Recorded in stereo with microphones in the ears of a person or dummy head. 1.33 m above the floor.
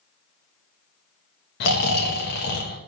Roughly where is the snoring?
Left.